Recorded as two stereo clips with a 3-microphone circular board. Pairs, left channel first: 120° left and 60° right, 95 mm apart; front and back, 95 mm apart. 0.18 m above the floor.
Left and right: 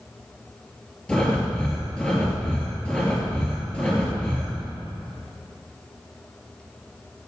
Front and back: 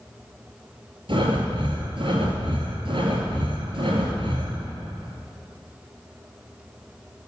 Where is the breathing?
160° right, 2.5 m.